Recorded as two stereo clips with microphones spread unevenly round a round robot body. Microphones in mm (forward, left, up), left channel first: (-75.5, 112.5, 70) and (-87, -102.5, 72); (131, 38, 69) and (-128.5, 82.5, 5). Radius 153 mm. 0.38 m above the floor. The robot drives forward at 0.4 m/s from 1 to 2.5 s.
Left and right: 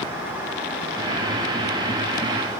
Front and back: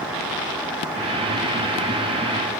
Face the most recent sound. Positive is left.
No sound to turn to.